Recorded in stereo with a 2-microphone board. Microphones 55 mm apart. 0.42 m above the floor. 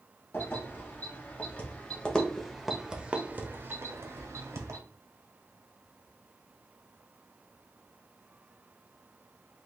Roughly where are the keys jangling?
Left.